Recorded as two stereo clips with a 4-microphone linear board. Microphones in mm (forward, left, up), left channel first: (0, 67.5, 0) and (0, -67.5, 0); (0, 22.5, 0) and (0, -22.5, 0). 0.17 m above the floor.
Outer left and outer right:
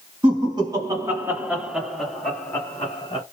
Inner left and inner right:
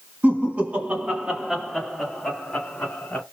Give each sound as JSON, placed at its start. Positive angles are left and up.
{"t": 0.2, "sound": "laughter", "side_deg": -35, "distance_m": 1.7}